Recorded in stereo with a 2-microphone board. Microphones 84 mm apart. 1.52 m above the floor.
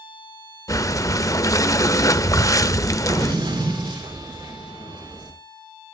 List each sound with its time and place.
0.7 s breathing: 40° left (ahead or behind), 0.5 m
3.1 s an explosion: 80° right, 5 m